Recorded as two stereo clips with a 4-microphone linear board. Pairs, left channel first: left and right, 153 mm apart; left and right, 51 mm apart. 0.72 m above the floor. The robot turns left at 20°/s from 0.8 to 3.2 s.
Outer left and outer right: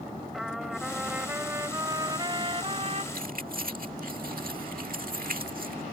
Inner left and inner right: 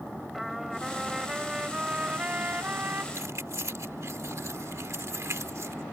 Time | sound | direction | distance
0.3 | a trumpet | straight ahead | ?
3.1 | keys jangling | 70° right (ahead or behind) | ?